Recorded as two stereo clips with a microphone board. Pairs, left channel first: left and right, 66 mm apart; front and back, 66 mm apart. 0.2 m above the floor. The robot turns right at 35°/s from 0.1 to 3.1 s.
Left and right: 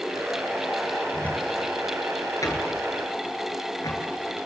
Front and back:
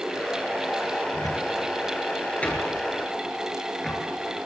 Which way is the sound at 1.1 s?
20° left.